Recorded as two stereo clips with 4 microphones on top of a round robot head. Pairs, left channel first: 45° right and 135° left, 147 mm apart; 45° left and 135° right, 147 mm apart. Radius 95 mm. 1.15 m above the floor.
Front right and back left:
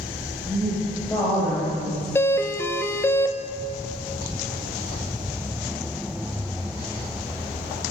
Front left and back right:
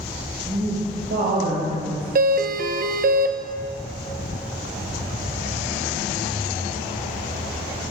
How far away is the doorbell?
About 1.3 m.